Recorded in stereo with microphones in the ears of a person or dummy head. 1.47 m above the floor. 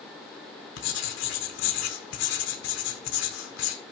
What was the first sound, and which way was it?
Writing, 75° left (ahead or behind).